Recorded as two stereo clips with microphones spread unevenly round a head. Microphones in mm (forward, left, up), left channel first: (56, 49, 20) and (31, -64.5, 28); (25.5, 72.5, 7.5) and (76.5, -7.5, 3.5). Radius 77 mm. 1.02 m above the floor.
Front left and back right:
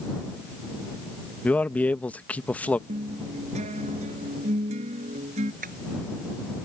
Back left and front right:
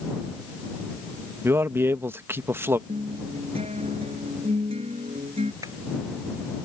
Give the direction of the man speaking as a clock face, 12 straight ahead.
12 o'clock.